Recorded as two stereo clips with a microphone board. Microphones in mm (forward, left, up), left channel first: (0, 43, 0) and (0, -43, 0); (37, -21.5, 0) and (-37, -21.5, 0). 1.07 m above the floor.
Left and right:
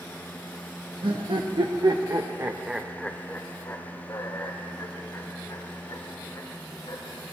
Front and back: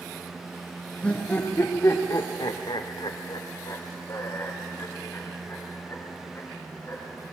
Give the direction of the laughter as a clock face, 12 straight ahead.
3 o'clock.